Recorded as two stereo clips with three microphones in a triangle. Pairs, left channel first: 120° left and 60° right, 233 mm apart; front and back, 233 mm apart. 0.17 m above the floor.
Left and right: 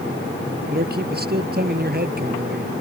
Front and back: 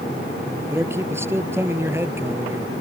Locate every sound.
0.7 s a man speaking: 100° right